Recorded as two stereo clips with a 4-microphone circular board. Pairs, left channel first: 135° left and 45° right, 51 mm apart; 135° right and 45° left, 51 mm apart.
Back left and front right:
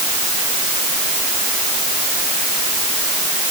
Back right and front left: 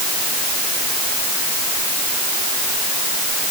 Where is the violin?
I don't hear a violin.